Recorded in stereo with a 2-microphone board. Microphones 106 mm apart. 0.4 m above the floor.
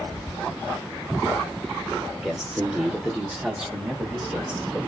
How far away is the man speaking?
About 0.8 m.